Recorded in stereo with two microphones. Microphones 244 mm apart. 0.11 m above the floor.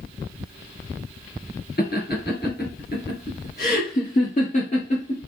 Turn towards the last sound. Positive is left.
turn(degrees=25)  # may be behind; listen again after turning